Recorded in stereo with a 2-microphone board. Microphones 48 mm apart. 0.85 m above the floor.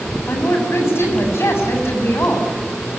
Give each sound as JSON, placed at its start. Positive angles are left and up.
{"t": 0.3, "sound": "a woman speaking", "side_deg": 60, "distance_m": 7.5}